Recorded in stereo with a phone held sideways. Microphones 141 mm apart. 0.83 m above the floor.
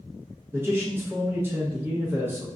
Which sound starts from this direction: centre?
A man speaking, at 0.5 s.